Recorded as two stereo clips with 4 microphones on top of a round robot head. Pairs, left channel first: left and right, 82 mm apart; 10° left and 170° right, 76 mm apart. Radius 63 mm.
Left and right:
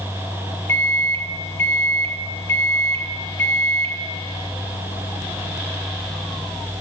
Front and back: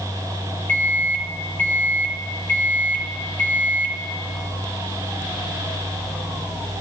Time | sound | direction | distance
0.7 | a microwave | 50° left | 0.8 m